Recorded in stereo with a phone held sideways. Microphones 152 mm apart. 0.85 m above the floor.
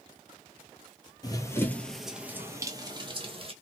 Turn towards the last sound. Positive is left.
turn(degrees=-40)  # may be behind; listen again after turning